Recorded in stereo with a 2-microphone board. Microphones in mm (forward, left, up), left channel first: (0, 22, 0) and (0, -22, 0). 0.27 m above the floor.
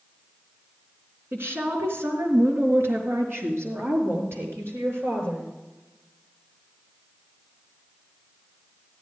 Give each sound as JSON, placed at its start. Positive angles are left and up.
{"t": 1.3, "sound": "a woman speaking", "side_deg": -65, "distance_m": 3.5}